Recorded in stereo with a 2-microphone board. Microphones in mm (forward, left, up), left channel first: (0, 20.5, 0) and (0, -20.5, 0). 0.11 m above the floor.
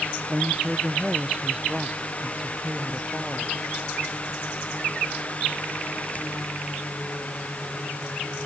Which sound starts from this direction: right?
A woman speaking, at 0.3 s.